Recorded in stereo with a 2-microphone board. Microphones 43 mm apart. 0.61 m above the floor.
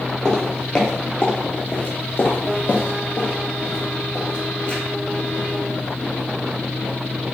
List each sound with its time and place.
0.2 s footsteps: 10° left (ahead or behind), 1.1 m; by 4.8 s 35° left (ahead or behind), 1.8 m